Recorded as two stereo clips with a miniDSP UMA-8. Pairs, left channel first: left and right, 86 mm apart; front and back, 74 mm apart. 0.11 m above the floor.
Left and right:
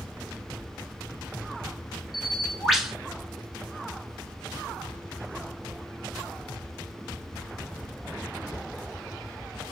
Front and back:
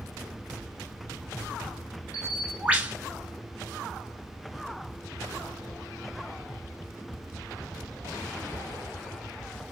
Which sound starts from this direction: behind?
A bird, at 2.1 s.